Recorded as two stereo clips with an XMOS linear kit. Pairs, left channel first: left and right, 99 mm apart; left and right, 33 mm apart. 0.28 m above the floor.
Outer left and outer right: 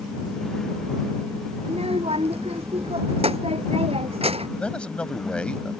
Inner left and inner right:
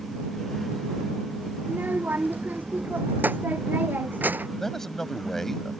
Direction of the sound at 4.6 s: 10° left (ahead or behind).